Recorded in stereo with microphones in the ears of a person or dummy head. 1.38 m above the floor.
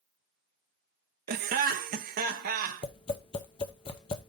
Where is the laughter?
45° right (ahead or behind), 0.6 m.